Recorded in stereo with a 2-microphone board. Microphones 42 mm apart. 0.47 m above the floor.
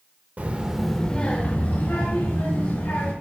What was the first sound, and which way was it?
A child speaking, 45° right (ahead or behind).